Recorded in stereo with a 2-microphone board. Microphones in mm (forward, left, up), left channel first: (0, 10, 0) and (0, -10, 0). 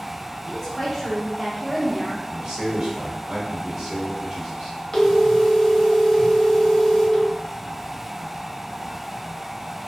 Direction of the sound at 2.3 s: 40° right (ahead or behind).